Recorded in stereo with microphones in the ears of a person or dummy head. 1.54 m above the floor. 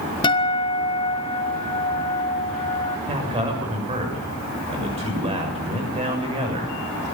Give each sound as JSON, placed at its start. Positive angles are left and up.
{"t": 0.2, "sound": "a guitar", "side_deg": 25, "distance_m": 1.5}
{"t": 3.1, "sound": "a man speaking", "side_deg": -20, "distance_m": 7.0}